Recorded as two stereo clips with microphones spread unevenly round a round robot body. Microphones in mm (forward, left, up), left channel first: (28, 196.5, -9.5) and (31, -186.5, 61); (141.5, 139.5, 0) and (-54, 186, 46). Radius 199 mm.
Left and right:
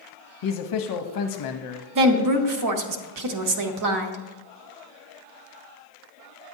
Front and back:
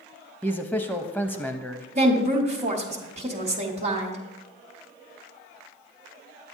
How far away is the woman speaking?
About 0.8 m.